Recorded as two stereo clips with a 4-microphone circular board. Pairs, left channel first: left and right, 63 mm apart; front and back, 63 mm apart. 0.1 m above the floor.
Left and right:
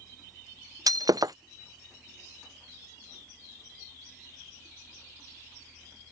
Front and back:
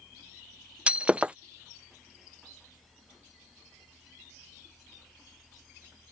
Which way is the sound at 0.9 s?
110° right.